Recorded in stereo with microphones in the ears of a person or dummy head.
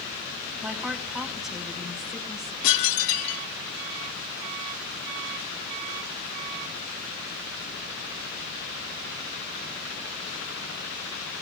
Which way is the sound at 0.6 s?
Centre (ahead or behind).